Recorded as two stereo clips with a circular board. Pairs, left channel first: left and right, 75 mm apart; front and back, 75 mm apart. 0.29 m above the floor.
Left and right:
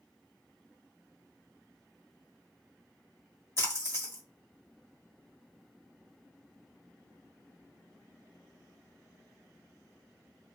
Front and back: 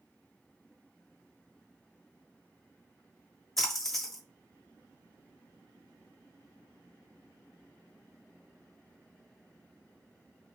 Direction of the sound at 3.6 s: 85° left.